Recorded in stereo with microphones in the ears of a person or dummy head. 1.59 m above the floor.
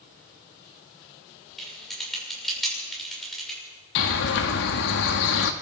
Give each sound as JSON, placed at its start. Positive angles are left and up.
{"t": 1.6, "sound": "typing on a keyboard", "side_deg": 0, "distance_m": 6.5}
{"t": 4.0, "sound": "a bird", "side_deg": 60, "distance_m": 1.6}